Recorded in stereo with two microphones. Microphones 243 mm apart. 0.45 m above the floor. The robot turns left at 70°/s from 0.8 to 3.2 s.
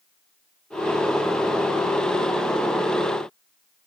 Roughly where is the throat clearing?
No throat clearing in this recording.